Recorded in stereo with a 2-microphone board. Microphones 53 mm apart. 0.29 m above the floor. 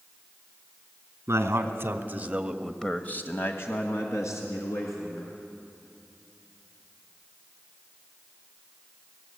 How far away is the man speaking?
About 2.5 m.